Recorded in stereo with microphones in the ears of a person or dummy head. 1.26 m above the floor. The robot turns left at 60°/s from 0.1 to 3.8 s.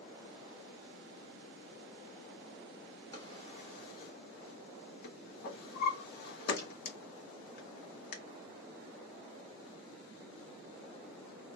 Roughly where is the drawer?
Centre.